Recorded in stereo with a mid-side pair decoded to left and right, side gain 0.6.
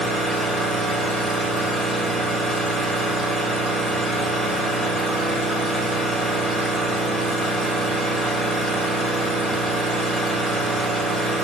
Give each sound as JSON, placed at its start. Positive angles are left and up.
{"t": 0.0, "sound": "an engine running", "azimuth_deg": 5, "distance_m": 2.5}